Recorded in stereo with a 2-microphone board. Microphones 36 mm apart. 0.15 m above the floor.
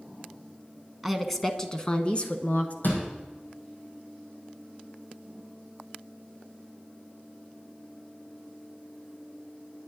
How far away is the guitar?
No guitar in this recording.